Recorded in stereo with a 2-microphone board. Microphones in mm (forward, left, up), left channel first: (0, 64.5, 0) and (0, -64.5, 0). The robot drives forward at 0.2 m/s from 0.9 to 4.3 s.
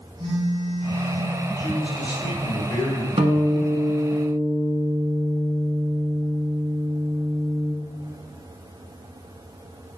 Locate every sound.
0.2 s a phone buzzing: 35° right (ahead or behind), 1.7 m
1.6 s a man speaking: 35° left (ahead or behind), 1.3 m
3.2 s a guitar: 50° right (ahead or behind), 0.6 m; by 7.7 s 40° right (ahead or behind), 0.7 m